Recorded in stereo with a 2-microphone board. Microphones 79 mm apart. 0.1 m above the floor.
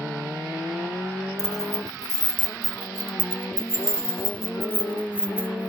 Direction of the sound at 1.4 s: 50° right (ahead or behind).